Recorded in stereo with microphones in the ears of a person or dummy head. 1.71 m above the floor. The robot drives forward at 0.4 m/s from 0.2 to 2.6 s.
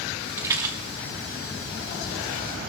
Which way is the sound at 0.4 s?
15° right (ahead or behind).